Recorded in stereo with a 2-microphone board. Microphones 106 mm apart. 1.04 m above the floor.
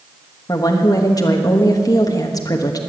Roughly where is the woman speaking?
Left.